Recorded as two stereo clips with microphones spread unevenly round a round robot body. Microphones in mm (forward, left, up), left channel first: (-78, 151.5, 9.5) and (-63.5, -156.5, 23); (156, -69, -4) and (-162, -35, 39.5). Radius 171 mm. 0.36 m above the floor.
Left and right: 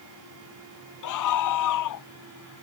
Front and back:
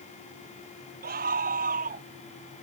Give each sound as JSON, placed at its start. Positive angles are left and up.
{"t": 1.0, "sound": "a scream", "azimuth_deg": 110}